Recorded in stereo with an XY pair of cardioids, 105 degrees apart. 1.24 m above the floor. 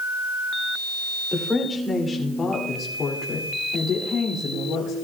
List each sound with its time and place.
1.3 s a woman speaking: 15° left, 3 m; by 5.0 s 75° left, 3 m